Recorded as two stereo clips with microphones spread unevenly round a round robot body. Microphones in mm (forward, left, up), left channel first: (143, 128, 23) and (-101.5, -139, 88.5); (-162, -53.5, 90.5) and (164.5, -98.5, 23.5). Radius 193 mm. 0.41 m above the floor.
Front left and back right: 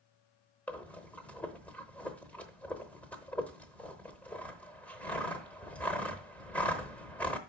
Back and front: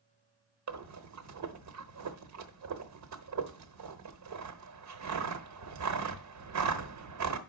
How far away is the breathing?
About 0.9 m.